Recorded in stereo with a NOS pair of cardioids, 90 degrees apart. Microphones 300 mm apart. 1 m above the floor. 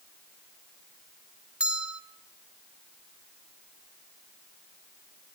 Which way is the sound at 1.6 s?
5° right.